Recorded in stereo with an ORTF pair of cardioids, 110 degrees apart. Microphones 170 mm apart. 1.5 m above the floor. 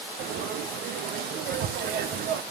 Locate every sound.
0.2 s frying: 65° right, 0.9 m